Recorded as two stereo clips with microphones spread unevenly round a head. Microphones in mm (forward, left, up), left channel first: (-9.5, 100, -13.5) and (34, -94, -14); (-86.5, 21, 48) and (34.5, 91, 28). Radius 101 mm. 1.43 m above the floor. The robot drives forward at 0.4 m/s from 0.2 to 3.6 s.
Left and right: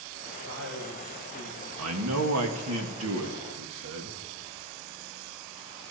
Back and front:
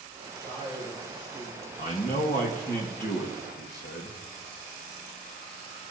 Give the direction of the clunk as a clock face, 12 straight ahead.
I don't hear a clunk.